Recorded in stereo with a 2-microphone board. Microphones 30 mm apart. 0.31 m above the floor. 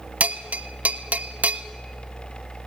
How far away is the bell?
About 0.6 m.